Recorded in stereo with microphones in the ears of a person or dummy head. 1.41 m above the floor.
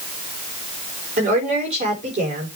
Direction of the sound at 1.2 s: 40° right (ahead or behind).